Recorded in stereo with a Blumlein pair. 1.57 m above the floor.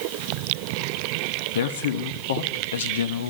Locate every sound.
1.6 s a man speaking: 60° left, 1.0 m